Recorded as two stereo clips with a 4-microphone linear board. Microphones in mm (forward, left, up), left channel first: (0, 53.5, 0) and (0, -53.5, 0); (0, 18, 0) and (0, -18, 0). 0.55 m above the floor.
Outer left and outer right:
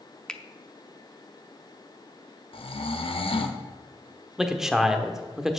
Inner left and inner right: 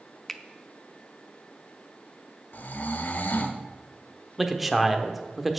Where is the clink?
No clink in this recording.